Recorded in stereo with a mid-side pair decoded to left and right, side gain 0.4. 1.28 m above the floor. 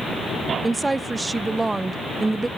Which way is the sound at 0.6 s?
20° right.